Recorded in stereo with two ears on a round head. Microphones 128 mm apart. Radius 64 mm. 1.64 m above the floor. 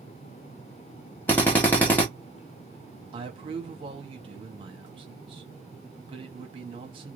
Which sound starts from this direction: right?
A man speaking, at 3.1 s.